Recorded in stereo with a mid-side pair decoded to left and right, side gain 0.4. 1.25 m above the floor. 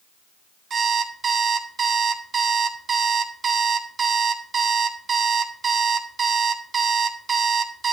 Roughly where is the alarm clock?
Ahead right.